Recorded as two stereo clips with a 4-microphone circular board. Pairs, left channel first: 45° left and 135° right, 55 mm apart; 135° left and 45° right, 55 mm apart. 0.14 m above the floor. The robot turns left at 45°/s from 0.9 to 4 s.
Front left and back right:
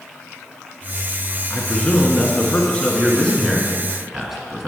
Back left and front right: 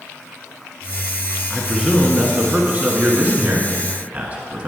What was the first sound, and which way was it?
A man speaking, 60° left.